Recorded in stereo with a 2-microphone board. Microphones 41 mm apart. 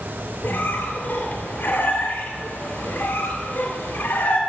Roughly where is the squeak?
Left.